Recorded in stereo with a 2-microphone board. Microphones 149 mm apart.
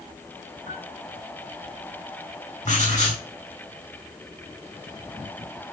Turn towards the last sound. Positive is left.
turn(degrees=55)  # may be behind; listen again after turning